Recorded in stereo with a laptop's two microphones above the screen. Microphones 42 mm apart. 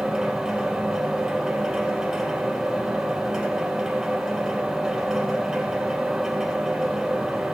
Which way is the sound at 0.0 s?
15° right (ahead or behind).